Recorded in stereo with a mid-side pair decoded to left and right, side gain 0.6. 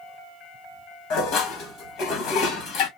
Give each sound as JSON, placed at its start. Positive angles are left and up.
{"t": 1.1, "sound": "dishes clattering", "azimuth_deg": 70, "distance_m": 1.7}